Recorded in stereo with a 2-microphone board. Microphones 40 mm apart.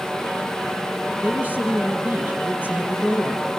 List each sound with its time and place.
1.2 s a woman speaking: 40° right (ahead or behind), 4 m